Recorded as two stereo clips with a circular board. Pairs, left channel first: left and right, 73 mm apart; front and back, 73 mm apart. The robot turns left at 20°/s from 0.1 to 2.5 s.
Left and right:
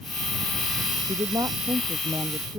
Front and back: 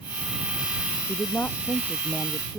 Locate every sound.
1.1 s a woman speaking: 60° right; by 2.6 s 85° right